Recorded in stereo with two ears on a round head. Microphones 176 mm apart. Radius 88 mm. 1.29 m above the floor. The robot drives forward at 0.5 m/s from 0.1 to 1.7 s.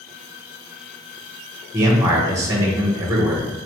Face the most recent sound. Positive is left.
turn(degrees=-15)  # may be behind; listen again after turning